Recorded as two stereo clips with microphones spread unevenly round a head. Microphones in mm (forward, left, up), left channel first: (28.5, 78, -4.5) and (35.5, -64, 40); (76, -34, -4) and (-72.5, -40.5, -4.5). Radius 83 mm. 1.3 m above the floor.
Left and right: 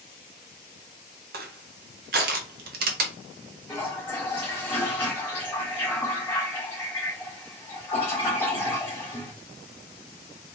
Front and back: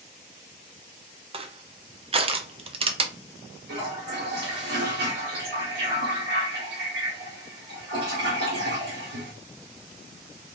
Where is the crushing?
125° right, 0.8 m.